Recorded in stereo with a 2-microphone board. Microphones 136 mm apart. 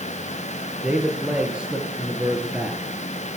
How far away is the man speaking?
About 4 m.